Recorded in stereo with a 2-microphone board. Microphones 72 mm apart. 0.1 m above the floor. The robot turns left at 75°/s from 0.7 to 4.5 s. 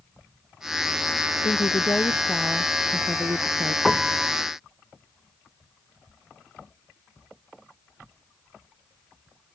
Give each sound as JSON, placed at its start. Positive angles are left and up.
{"t": 1.4, "sound": "a woman speaking", "azimuth_deg": 75}
{"t": 3.9, "sound": "a piano", "azimuth_deg": 5}